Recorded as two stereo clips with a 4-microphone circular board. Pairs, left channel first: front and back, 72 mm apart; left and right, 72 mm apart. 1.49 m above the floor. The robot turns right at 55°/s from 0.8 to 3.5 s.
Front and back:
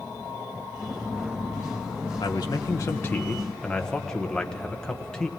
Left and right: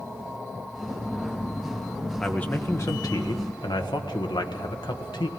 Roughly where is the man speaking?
Ahead.